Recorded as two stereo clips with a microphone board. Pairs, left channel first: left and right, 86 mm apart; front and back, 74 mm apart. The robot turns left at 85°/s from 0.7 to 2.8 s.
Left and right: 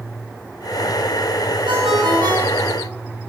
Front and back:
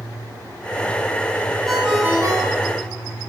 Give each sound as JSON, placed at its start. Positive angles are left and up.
{"t": 1.7, "sound": "a ringtone", "azimuth_deg": -85, "distance_m": 6.0}